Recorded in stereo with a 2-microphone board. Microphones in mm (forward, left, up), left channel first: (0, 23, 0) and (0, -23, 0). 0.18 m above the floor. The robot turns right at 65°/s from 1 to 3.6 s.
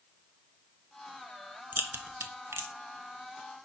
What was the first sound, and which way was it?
A crack, 45° right (ahead or behind).